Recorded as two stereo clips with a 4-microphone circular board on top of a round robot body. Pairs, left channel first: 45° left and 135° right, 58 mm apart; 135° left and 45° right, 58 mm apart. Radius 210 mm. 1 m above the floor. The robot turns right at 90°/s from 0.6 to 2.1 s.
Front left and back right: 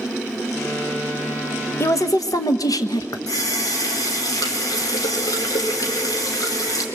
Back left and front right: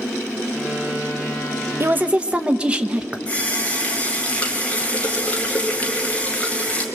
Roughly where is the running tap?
Ahead left.